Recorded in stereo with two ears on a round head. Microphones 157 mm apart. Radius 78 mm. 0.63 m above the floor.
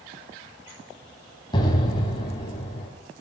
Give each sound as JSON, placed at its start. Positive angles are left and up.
{"t": 1.5, "sound": "an explosion", "side_deg": 25, "distance_m": 4.0}